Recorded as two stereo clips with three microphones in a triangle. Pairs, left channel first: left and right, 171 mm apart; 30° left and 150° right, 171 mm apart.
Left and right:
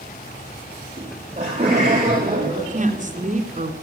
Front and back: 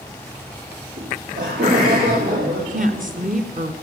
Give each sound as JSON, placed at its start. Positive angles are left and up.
{"t": 1.0, "sound": "laughter", "azimuth_deg": -145, "distance_m": 8.0}
{"t": 2.6, "sound": "a woman speaking", "azimuth_deg": -125, "distance_m": 3.0}